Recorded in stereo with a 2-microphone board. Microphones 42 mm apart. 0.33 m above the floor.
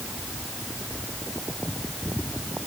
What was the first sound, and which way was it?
Only background noise.